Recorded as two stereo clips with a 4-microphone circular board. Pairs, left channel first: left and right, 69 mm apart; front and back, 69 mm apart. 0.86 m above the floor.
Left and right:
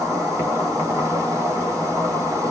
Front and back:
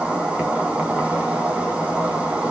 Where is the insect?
110° right, 1.3 m.